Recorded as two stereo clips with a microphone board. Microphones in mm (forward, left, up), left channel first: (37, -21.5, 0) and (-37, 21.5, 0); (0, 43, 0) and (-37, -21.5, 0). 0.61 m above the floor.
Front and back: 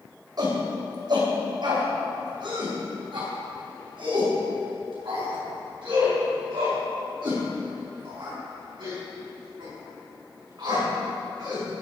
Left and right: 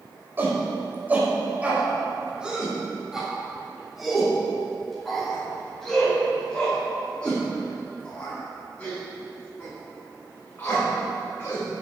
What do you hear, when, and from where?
0.4 s a shout: straight behind, 3 m; by 11.6 s 125° left, 7 m